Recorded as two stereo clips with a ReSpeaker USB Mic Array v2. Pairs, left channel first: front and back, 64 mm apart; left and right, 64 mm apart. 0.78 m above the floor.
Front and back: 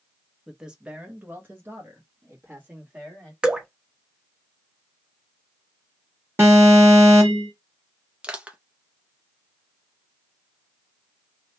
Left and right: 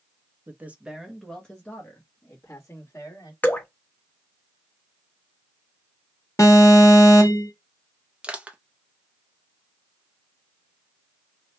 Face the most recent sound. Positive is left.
turn(degrees=-140)